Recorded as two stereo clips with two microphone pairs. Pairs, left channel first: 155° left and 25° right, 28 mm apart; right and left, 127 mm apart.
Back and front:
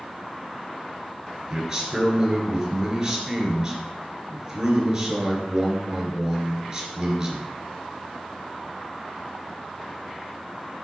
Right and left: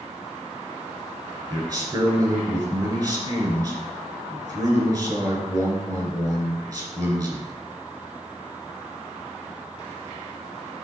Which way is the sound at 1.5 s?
40° left.